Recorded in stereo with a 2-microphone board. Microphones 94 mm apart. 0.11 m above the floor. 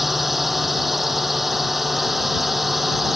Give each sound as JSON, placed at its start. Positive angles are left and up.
{"t": 0.0, "sound": "a drone", "side_deg": 0}